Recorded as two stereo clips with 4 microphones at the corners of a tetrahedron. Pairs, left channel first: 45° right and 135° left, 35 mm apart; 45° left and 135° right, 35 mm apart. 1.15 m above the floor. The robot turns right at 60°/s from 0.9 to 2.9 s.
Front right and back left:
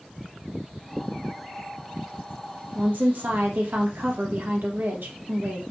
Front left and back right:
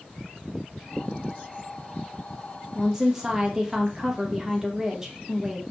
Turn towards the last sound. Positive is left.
turn(degrees=150)